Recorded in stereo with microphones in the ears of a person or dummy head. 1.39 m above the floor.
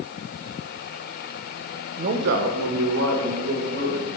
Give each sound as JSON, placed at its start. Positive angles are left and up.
{"t": 2.0, "sound": "a man speaking", "side_deg": -40, "distance_m": 0.7}